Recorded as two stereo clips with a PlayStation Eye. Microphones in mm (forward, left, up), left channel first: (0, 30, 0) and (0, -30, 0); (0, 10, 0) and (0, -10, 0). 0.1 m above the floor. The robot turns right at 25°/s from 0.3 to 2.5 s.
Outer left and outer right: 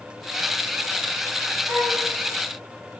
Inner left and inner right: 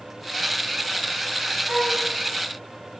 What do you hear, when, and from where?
1.7 s a flute: 55° right (ahead or behind), 5 m; by 2.0 s 60° right (ahead or behind), 5 m